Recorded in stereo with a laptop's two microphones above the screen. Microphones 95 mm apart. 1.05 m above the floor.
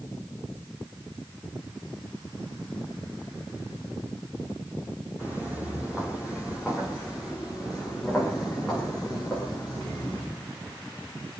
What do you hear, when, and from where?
5.2 s footsteps: 15° right (ahead or behind), 4 m; by 10.2 s 15° left (ahead or behind), 7 m